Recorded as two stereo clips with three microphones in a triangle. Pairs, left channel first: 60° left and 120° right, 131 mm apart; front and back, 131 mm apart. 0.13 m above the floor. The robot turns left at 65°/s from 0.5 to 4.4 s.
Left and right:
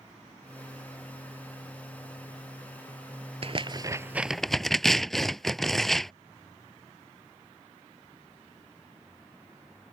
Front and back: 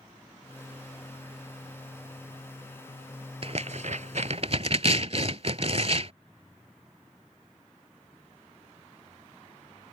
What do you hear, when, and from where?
3.4 s tearing paper: 150° right; by 6.1 s 145° left